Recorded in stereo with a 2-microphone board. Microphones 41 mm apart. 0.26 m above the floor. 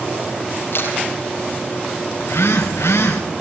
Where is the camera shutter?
60° left (ahead or behind), 6 m.